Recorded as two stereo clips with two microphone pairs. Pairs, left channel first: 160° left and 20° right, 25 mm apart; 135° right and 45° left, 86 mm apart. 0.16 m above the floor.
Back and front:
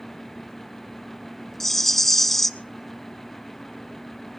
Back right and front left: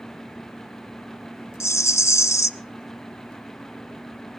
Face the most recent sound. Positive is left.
turn(degrees=-130)